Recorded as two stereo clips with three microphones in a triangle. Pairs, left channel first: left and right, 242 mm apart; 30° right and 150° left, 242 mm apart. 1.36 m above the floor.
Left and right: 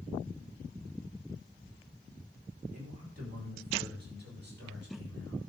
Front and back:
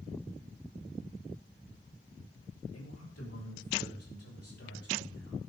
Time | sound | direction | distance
2.7 | a man speaking | 30° right | 5.5 m